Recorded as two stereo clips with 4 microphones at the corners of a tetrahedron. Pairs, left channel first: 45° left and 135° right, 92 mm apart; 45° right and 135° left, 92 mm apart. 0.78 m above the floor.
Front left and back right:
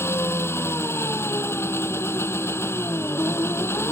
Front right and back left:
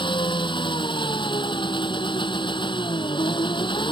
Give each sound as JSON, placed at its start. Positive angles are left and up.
{"t": 0.0, "sound": "an engine running", "azimuth_deg": -20}